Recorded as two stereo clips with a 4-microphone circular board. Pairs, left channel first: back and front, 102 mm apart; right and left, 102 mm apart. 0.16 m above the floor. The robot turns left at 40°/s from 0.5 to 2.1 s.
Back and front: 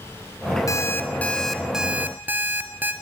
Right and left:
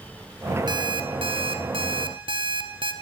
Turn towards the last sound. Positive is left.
turn(degrees=70)